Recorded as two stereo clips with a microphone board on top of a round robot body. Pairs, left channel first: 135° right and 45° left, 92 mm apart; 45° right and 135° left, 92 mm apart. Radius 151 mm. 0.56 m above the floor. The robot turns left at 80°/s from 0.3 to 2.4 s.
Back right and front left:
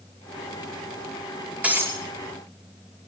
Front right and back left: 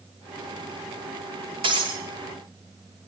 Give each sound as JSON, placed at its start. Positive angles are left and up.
{"t": 1.6, "sound": "breaking glass", "azimuth_deg": 120, "distance_m": 5.5}